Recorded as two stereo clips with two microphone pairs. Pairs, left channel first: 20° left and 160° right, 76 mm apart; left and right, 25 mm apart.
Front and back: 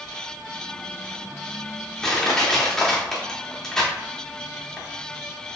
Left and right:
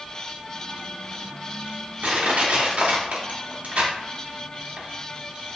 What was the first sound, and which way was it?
Crushing, 60° right.